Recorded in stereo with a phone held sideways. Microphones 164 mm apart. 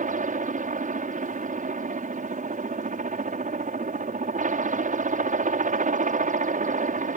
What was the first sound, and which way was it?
A helicopter, 55° right (ahead or behind).